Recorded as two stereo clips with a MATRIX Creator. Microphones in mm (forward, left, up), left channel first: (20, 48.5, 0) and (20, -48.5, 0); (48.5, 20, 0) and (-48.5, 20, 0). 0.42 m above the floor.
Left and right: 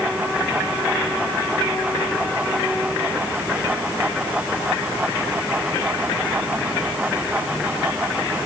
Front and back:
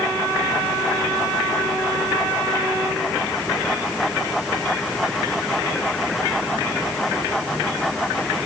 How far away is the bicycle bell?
I don't hear a bicycle bell.